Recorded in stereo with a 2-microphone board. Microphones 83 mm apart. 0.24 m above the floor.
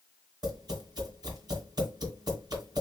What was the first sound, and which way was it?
Tapping, 50° right (ahead or behind).